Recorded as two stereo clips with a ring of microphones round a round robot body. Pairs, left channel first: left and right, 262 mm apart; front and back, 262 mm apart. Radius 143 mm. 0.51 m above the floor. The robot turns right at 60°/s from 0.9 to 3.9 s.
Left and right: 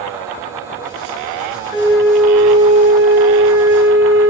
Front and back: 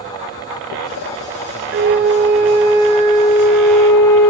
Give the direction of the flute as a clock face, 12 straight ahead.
7 o'clock.